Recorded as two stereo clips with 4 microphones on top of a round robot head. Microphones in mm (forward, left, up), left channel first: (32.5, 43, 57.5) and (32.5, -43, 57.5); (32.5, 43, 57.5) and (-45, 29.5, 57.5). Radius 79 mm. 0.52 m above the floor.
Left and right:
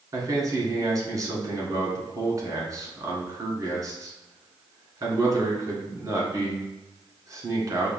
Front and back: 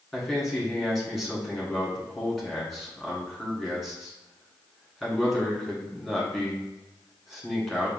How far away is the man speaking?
About 1.7 m.